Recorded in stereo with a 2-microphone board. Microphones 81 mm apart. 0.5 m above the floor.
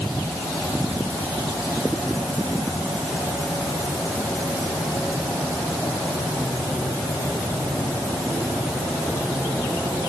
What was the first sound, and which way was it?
Only background noise.